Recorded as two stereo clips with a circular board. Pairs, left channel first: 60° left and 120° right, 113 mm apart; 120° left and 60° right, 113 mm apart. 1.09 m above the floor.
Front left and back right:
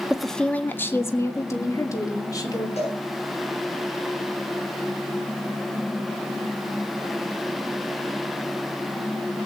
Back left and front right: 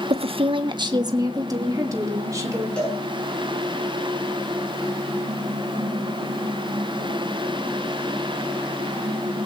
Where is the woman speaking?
35° right, 0.7 m; by 2.7 s straight ahead, 3 m.